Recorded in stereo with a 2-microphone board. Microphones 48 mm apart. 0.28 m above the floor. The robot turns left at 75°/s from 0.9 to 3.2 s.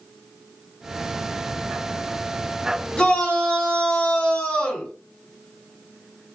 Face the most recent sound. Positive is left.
turn(degrees=20)  # may be behind; listen again after turning